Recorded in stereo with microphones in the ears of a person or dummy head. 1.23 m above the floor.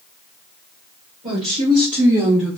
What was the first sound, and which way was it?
A woman speaking, 35° right (ahead or behind).